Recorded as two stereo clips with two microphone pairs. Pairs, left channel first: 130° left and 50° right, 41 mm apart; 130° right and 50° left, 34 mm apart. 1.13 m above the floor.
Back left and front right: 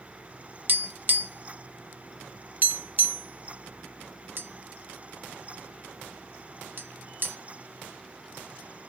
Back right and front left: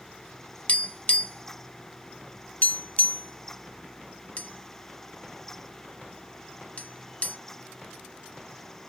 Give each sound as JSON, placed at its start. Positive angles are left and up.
{"t": 0.7, "sound": "tapping", "azimuth_deg": -85, "distance_m": 0.7}